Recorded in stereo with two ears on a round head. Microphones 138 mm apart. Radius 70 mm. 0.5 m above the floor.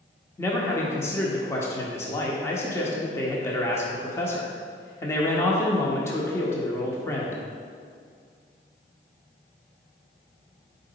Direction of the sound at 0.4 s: 20° left (ahead or behind).